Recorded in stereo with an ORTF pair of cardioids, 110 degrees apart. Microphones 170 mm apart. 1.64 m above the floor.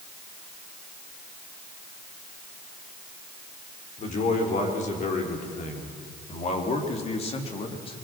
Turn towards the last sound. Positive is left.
turn(degrees=35)